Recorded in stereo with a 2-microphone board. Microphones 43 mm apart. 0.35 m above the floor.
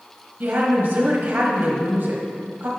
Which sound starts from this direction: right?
A woman speaking, at 0.4 s.